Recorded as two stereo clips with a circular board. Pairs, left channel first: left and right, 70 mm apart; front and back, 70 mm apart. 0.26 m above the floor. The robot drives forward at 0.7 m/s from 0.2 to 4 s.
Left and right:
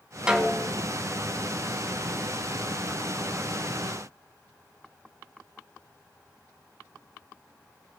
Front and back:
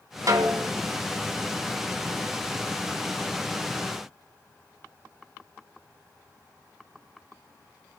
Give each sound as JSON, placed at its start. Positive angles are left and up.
{"t": 0.3, "sound": "a snare drum", "azimuth_deg": -165, "distance_m": 1.8}